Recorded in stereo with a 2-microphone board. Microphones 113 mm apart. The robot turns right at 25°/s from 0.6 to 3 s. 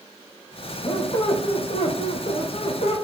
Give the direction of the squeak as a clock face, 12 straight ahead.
10 o'clock.